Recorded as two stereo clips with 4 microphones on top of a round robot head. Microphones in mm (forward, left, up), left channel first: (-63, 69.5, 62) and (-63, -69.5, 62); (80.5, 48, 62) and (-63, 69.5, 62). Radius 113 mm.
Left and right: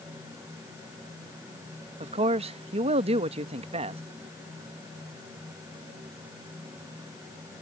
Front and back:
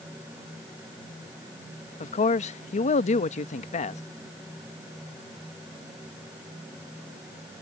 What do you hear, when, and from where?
2.0 s a man speaking: 45° right